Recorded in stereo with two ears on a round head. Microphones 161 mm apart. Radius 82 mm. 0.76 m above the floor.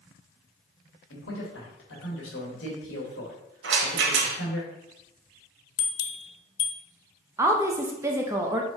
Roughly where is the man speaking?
Left.